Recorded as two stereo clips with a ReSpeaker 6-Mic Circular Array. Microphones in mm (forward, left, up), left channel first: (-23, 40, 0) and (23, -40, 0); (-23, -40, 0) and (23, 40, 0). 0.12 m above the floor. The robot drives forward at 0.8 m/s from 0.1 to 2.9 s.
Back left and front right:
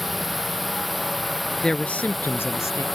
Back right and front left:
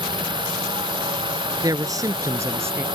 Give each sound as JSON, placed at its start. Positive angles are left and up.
{"t": 0.0, "sound": "a drone", "azimuth_deg": 30}
{"t": 1.6, "sound": "a man speaking", "azimuth_deg": 40}